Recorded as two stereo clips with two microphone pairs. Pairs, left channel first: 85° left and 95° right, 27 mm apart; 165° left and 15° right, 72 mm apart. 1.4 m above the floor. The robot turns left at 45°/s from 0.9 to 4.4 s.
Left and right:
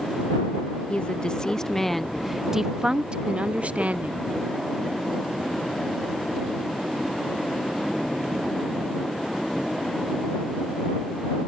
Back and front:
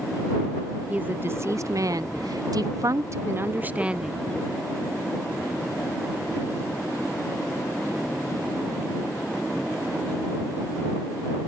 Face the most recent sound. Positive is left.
turn(degrees=-110)